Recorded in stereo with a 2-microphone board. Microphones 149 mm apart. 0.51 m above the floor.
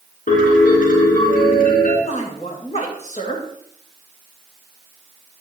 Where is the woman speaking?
50° left (ahead or behind), 2 m.